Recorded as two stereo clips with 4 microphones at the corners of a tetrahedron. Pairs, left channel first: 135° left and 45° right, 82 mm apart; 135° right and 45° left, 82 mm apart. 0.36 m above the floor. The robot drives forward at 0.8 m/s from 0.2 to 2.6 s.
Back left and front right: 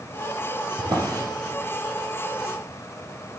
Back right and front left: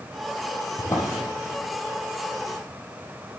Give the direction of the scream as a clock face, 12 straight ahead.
I don't hear a scream.